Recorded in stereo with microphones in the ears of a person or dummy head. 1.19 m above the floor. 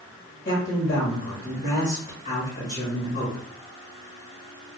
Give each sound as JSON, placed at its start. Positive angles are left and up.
{"t": 0.5, "sound": "a man speaking", "side_deg": 40, "distance_m": 1.6}